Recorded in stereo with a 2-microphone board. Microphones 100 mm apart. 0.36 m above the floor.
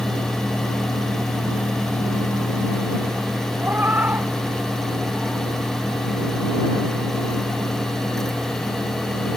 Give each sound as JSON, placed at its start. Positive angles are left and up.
{"t": 3.6, "sound": "a cat meowing", "side_deg": -20}